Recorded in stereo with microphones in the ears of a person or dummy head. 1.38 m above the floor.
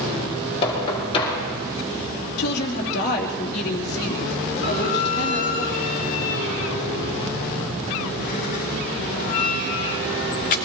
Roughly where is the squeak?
Left.